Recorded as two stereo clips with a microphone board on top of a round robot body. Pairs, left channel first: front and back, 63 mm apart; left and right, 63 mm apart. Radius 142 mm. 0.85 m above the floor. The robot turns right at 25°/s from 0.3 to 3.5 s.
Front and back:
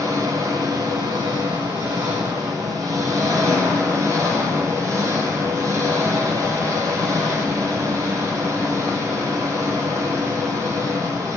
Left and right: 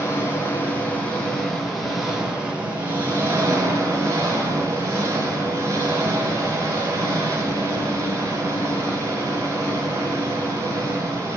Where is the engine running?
140° left, 2.5 m; by 11.4 s 140° right, 2.5 m.